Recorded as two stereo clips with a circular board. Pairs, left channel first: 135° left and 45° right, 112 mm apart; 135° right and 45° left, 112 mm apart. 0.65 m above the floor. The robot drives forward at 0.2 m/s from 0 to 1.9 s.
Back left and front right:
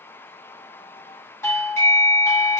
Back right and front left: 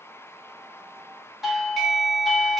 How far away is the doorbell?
About 0.9 m.